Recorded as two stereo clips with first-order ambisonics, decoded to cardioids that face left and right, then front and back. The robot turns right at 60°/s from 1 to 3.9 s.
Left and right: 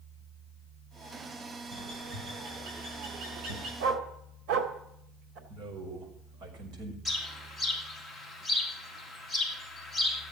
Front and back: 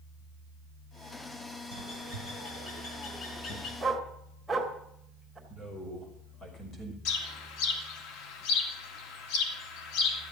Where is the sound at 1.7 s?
160° right, 6 m; by 3.7 s 40° right, 6 m.